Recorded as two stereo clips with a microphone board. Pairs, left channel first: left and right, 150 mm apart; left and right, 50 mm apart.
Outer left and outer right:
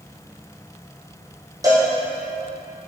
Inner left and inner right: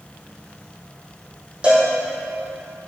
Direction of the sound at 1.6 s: 25° right (ahead or behind).